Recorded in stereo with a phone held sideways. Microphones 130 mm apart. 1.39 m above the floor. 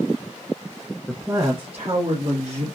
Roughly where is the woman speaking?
Centre.